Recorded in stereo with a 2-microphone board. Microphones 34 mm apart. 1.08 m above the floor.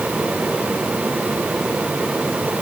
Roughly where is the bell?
No bell in this recording.